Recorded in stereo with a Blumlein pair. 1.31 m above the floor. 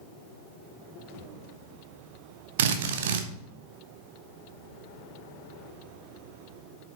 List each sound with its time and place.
2.6 s a drill: 55° right, 1.1 m